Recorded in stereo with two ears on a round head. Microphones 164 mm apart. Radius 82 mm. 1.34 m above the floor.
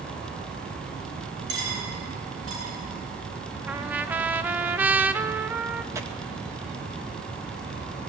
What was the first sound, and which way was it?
Cutlery clinking, 65° right (ahead or behind).